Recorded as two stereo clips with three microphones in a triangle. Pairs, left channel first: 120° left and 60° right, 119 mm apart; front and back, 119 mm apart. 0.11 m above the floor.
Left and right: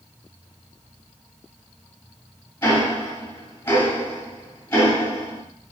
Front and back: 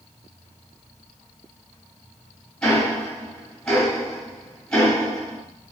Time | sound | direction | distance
2.6 | ticking | 75° left | 1.9 m